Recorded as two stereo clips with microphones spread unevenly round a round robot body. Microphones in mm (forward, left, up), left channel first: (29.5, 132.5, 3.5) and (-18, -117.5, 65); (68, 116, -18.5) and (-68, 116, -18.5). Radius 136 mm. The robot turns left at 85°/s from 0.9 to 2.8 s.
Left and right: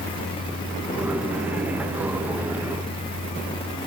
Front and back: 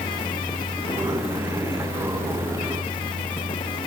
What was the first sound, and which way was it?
Only background noise.